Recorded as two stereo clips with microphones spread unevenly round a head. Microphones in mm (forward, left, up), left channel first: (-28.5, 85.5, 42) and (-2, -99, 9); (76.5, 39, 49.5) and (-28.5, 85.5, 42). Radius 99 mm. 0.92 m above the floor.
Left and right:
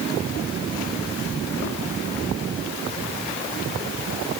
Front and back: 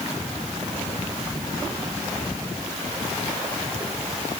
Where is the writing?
I don't hear writing.